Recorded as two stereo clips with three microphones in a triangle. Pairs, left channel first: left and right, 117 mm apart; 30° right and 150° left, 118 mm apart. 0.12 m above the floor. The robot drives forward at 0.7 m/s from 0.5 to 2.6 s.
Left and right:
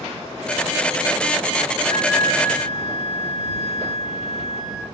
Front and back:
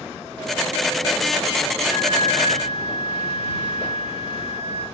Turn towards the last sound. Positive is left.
turn(degrees=155)